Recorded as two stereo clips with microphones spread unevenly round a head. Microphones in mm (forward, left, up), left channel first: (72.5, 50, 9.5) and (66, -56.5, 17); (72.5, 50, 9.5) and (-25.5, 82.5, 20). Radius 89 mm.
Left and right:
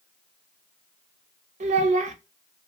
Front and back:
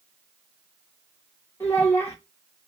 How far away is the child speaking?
About 0.6 m.